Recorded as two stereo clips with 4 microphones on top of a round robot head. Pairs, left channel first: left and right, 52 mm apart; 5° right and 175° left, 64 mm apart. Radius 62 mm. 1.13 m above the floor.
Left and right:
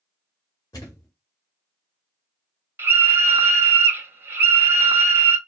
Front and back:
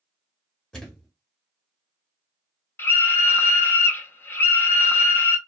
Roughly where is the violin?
I don't hear a violin.